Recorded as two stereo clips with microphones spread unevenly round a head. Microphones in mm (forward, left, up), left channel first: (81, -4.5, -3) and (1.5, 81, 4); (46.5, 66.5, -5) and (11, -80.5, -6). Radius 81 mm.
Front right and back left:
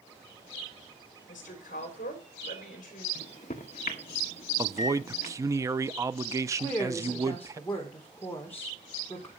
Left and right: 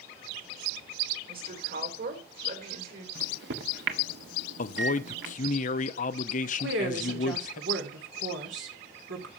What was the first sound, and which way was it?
A woman speaking, 80° right.